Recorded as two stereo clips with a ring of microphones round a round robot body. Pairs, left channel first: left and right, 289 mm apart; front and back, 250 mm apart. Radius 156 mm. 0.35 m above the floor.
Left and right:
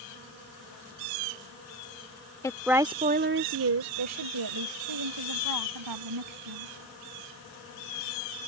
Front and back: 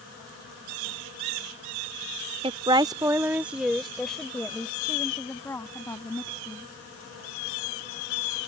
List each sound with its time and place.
2.4 s a woman speaking: 150° left; by 6.7 s 80° right